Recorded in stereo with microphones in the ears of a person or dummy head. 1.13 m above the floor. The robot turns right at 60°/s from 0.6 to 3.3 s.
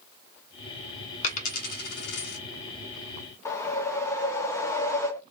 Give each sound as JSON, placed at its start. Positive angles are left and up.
{"t": 1.2, "sound": "a dropped coin", "side_deg": 40, "distance_m": 1.0}
{"t": 3.5, "sound": "a whoosh", "side_deg": 20, "distance_m": 0.7}